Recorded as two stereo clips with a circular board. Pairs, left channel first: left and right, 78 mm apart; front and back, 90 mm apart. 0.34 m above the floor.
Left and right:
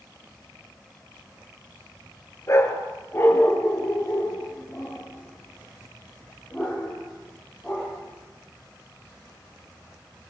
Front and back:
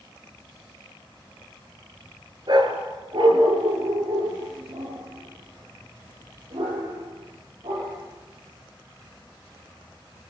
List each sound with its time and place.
2.5 s a dog barking: 145° left, 2.5 m; by 8.0 s 175° left, 6.5 m